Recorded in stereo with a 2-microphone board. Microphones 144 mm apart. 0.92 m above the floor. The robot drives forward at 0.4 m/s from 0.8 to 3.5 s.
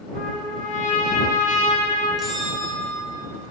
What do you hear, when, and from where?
0.1 s a trumpet: 75° left (ahead or behind), 2.5 m; by 2.1 s 65° left (ahead or behind), 3 m
2.2 s a bell: centre (ahead or behind), 1.6 m